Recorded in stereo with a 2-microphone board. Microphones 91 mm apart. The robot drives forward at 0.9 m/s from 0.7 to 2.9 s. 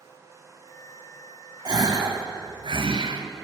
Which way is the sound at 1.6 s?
45° right (ahead or behind).